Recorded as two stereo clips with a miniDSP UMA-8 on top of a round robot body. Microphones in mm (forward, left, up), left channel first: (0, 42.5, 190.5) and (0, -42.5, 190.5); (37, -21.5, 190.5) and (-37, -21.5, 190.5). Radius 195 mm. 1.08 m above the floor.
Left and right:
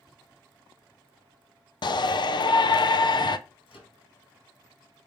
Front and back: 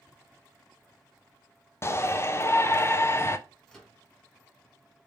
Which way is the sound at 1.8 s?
55° left.